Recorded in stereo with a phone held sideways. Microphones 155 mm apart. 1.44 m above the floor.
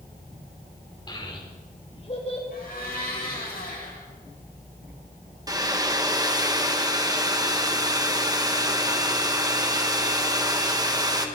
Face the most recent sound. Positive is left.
turn(degrees=-25)  # may be behind; listen again after turning